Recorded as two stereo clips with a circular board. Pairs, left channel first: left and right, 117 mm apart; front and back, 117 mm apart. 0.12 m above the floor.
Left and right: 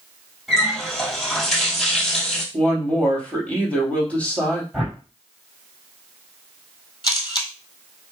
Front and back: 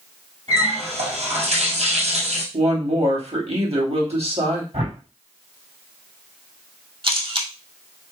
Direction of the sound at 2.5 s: 170° left.